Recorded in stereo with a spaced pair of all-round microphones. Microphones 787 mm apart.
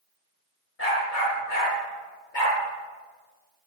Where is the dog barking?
80° left, 5.5 m; by 2.6 s 75° left (ahead or behind), 7.5 m.